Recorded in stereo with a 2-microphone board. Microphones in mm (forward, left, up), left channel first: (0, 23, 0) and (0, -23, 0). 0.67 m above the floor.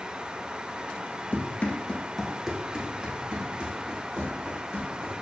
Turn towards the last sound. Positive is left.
turn(degrees=-40)  # may be behind; listen again after turning